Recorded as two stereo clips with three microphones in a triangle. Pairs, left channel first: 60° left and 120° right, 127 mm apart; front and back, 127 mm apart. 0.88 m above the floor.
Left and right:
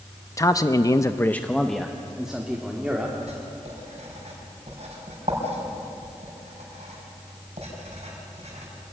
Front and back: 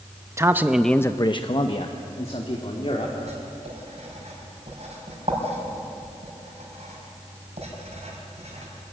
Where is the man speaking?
115° left, 0.9 m; by 3.1 s 40° right, 2.5 m.